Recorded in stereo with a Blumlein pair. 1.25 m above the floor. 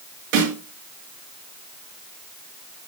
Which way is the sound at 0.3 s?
50° right.